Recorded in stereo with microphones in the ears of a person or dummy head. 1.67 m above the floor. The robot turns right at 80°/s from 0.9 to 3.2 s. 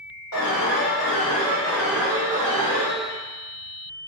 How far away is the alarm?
About 1.8 m.